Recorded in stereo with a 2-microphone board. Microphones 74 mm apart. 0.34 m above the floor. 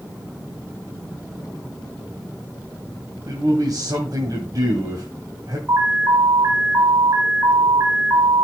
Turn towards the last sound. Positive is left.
turn(degrees=-35)  # may be behind; listen again after turning